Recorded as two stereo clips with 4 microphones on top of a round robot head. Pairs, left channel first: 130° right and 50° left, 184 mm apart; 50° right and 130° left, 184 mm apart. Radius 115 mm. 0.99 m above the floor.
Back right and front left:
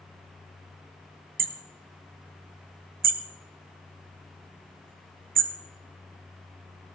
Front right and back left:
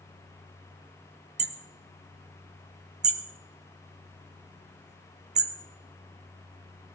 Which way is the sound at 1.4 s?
85° left.